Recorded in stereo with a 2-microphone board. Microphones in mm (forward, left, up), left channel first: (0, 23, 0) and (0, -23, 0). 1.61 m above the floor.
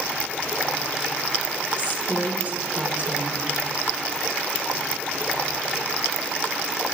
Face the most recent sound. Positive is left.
turn(degrees=-35)  # may be behind; listen again after turning